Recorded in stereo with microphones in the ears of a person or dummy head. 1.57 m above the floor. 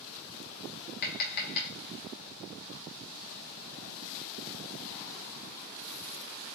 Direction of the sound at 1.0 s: 45° left (ahead or behind).